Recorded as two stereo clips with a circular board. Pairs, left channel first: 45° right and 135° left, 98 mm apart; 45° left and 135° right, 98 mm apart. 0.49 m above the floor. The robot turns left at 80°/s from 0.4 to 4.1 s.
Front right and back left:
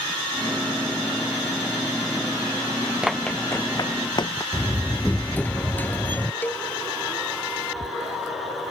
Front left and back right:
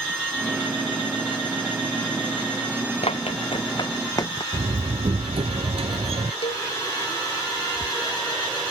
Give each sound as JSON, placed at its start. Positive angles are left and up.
{"t": 3.0, "sound": "running footsteps", "azimuth_deg": 50}
{"t": 4.5, "sound": "a door slam", "azimuth_deg": -120}
{"t": 6.4, "sound": "a cowbell", "azimuth_deg": 25}